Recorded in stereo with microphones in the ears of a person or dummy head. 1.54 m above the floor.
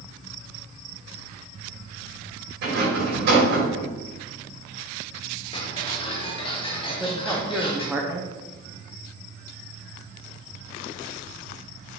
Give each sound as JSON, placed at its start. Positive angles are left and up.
{"t": 2.6, "sound": "a rattle", "side_deg": -60, "distance_m": 3.5}
{"t": 5.5, "sound": "ticking", "side_deg": 25, "distance_m": 1.1}
{"t": 6.9, "sound": "a man speaking", "side_deg": -5, "distance_m": 0.8}